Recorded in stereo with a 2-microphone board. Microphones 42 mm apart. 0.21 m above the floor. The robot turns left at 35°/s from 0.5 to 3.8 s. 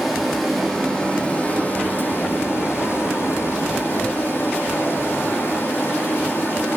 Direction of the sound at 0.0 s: 175° right.